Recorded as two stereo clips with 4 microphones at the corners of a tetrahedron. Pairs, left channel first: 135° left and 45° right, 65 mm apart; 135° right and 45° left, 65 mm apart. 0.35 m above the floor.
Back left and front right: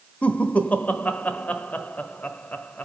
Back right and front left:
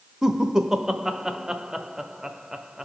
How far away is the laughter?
About 0.9 m.